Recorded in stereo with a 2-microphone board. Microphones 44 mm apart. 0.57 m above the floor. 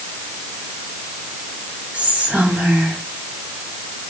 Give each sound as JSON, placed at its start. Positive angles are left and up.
{"t": 1.9, "sound": "whispering", "side_deg": -30, "distance_m": 1.6}